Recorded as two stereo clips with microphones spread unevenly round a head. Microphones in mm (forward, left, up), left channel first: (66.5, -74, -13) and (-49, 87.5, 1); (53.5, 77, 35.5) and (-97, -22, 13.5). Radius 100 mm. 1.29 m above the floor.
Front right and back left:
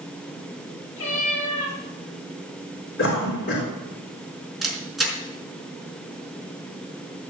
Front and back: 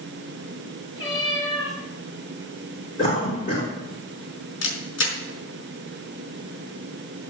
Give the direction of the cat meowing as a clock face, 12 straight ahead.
1 o'clock.